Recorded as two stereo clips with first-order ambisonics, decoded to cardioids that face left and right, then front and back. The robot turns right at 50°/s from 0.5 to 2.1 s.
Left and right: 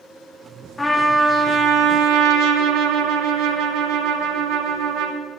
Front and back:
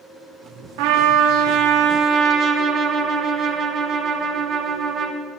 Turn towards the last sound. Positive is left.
turn(degrees=-125)